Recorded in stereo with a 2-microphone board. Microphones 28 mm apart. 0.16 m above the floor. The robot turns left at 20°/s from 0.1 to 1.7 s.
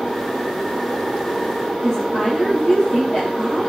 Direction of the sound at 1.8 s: 20° left (ahead or behind).